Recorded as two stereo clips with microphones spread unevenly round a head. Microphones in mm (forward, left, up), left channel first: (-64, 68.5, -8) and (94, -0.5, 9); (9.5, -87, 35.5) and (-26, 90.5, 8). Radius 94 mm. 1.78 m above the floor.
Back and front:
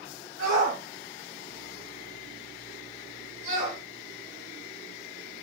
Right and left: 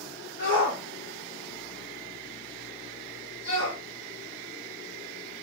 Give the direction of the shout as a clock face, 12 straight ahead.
2 o'clock.